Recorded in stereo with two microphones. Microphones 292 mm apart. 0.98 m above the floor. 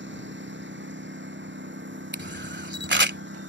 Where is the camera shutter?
40° right (ahead or behind).